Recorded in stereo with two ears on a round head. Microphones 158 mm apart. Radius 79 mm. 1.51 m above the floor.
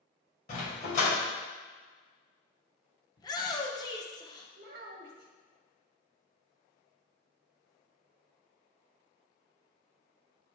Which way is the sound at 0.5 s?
45° left (ahead or behind).